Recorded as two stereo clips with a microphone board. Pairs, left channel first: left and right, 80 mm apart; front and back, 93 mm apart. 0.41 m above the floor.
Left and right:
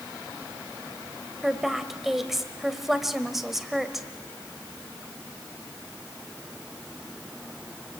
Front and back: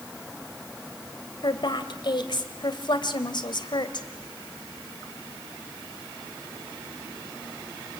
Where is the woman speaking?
5° right, 1.8 m.